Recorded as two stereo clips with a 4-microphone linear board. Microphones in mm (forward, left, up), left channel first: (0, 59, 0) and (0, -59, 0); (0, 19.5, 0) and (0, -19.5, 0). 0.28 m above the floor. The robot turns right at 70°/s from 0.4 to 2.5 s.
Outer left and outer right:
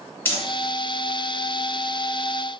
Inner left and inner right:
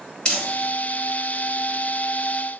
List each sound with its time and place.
0.2 s crumpling: 20° left (ahead or behind), 1.4 m; by 2.6 s 5° right (ahead or behind), 1.4 m